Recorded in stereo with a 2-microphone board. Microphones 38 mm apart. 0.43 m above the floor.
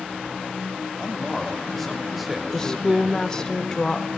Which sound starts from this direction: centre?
A woman speaking, at 2.5 s.